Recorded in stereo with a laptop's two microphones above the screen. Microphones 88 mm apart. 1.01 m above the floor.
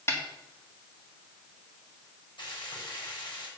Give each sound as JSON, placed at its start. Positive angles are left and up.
{"t": 0.1, "sound": "a snare drum", "side_deg": 30, "distance_m": 1.7}
{"t": 2.4, "sound": "frying", "side_deg": 65, "distance_m": 5.5}